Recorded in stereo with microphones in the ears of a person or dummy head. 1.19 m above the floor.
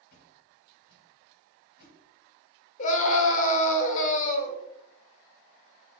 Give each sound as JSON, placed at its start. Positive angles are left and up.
{"t": 0.1, "sound": "a whoosh", "side_deg": 55, "distance_m": 1.2}
{"t": 2.8, "sound": "a scream", "side_deg": 40, "distance_m": 1.1}